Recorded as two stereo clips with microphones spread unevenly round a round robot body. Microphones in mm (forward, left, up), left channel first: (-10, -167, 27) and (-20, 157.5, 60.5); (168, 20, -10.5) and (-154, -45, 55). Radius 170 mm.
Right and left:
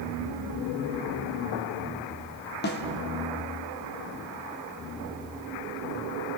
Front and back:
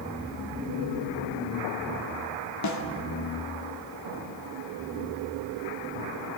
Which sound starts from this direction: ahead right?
A snare drum, at 2.6 s.